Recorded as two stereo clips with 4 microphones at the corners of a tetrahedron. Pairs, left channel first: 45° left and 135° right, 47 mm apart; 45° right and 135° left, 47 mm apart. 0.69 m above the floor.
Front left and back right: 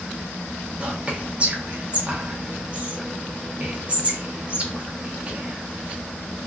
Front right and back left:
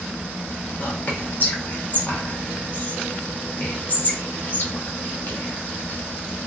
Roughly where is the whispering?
Right.